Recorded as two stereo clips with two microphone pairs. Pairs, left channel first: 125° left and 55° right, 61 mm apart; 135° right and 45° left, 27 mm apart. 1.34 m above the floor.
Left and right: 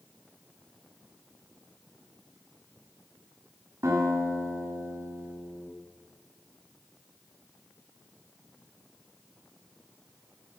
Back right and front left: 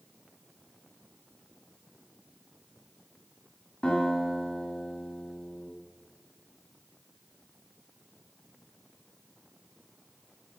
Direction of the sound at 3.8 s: 80° right.